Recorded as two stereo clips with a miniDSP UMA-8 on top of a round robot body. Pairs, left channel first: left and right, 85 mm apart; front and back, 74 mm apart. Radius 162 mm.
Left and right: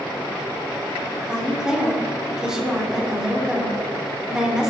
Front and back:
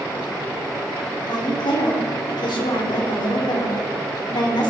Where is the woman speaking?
5° right, 4 m.